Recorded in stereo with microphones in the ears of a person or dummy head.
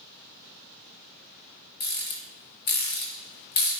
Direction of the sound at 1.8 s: 40° left (ahead or behind).